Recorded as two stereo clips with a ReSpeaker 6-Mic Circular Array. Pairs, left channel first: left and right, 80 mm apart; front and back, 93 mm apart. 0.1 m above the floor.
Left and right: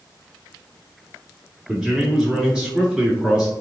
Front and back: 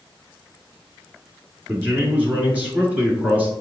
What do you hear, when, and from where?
1.7 s a man speaking: 150° right, 1.3 m